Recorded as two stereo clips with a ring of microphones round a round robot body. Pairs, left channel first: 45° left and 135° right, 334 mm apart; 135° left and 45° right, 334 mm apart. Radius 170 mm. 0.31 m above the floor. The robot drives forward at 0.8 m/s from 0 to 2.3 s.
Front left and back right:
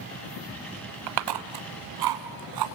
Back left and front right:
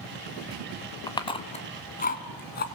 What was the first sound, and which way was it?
Chewing, 145° right.